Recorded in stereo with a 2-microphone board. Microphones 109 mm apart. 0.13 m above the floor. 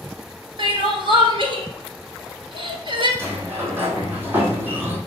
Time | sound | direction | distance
0.6 | crying | 55° right (ahead or behind) | 1.4 m
3.2 | a sliding door | 20° right (ahead or behind) | 2 m